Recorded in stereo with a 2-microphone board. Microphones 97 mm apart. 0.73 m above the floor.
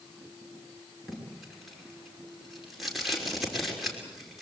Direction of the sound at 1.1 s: Centre (ahead or behind).